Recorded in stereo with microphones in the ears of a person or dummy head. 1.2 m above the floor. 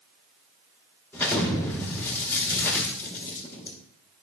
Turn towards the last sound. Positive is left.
turn(degrees=10)  # may be behind; listen again after turning